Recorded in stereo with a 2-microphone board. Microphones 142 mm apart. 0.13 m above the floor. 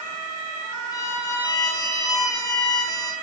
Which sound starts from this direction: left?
A violin, at 0.9 s.